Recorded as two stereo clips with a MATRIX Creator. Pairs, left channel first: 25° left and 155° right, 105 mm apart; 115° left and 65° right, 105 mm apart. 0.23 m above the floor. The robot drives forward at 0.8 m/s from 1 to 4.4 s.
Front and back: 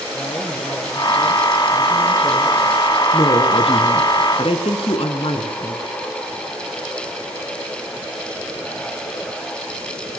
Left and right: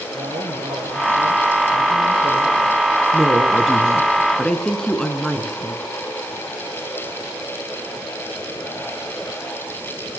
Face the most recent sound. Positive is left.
turn(degrees=30)